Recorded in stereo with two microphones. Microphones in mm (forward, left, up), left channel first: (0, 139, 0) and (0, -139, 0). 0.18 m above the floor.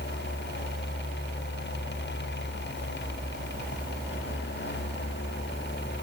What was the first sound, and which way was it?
Only background noise.